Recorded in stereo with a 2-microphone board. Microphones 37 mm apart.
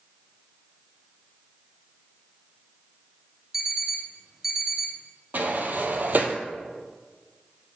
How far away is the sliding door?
About 0.7 m.